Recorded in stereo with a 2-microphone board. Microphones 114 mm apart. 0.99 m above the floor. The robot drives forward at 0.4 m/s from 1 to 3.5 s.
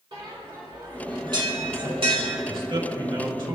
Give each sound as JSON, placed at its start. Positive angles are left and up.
{"t": 0.1, "sound": "a bell", "side_deg": -45, "distance_m": 2.5}
{"t": 2.5, "sound": "a man speaking", "side_deg": -55, "distance_m": 3.5}